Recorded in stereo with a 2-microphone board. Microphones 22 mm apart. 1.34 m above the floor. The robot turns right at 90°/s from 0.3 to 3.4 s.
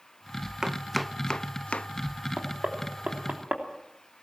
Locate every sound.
0.6 s chopping: 30° right (ahead or behind), 0.6 m; by 1.9 s 65° left (ahead or behind), 0.6 m
2.4 s knocking: 30° right (ahead or behind), 3 m; by 3.6 s 55° right (ahead or behind), 3 m